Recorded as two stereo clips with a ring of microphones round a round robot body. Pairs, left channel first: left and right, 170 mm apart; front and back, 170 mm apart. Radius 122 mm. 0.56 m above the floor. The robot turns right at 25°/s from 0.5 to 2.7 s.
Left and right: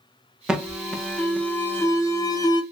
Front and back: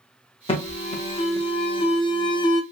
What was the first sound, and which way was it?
An alarm, 10° right.